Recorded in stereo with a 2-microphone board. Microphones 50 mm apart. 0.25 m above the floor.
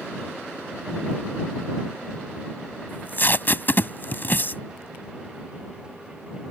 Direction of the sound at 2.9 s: 45° left (ahead or behind).